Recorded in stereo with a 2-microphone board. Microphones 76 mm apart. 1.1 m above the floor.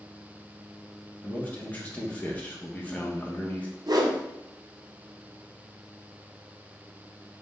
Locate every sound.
1.2 s a man speaking: 20° left (ahead or behind), 1.0 m
3.9 s a whoosh: 55° right (ahead or behind), 0.6 m